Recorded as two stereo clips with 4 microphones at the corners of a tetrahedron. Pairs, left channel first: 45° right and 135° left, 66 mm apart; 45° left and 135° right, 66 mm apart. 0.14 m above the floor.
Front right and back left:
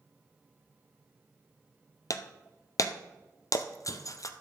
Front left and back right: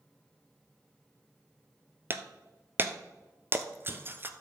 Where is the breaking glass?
80° right, 0.8 m.